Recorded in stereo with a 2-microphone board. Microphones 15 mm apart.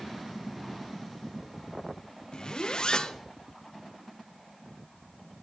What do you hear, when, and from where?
2.3 s a zipper: 50° left (ahead or behind), 0.7 m